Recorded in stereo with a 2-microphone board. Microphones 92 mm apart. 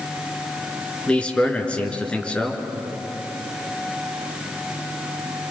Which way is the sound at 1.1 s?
15° left (ahead or behind).